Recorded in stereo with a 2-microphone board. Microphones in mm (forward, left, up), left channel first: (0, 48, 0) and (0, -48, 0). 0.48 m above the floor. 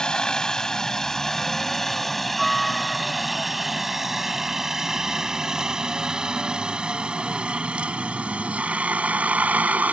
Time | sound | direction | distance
0.0 | a helicopter | 5° left (ahead or behind) | ?